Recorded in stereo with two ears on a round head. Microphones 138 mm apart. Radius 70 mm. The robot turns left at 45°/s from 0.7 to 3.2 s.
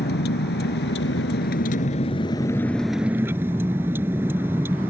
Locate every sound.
0.0 s a vehicle: 100° left; by 4.9 s 15° right